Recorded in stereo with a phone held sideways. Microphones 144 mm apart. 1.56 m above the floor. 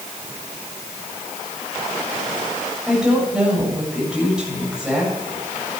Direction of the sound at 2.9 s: 5° right (ahead or behind).